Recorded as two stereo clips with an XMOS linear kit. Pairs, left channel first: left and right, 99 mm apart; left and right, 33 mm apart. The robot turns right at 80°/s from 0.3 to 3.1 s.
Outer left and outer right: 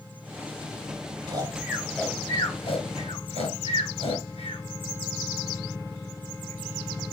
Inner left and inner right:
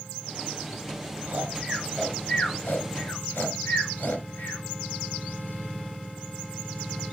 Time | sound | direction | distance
1.3 | snoring | 45° right (ahead or behind) | 5 m